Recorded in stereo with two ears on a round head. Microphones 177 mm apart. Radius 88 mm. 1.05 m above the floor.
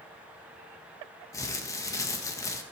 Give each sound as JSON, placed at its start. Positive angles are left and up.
{"t": 1.3, "sound": "crumpling", "side_deg": 15, "distance_m": 1.5}